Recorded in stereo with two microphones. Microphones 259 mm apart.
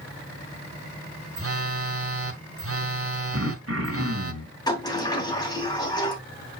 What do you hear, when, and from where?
1.4 s a phone buzzing: 55° right (ahead or behind), 0.9 m
3.3 s throat clearing: 60° right (ahead or behind), 2 m
4.7 s a sliding door: 15° left (ahead or behind), 2.5 m